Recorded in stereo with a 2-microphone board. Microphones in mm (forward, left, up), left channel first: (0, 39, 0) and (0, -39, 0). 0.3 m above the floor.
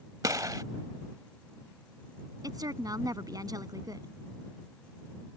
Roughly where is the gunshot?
Right.